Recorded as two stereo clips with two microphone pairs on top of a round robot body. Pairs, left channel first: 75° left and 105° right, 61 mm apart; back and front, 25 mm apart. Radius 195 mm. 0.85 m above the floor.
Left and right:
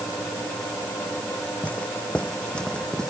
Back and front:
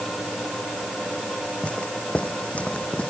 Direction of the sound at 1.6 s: 145° left.